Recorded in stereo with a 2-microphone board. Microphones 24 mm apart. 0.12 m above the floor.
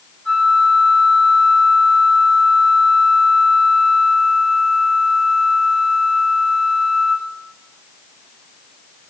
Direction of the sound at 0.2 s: 35° left (ahead or behind).